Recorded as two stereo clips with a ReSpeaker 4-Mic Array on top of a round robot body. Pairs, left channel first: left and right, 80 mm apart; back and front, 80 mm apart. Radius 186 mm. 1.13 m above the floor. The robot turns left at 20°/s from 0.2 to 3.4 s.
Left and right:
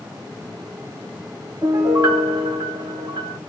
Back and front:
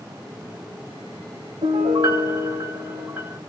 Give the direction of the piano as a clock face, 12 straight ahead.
1 o'clock.